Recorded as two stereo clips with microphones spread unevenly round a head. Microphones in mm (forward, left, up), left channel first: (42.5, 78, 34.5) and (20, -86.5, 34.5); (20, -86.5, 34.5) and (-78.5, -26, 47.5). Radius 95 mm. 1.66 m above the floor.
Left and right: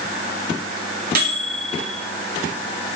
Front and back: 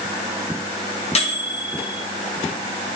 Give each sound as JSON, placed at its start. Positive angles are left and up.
{"t": 1.1, "sound": "a microwave", "azimuth_deg": -60, "distance_m": 1.9}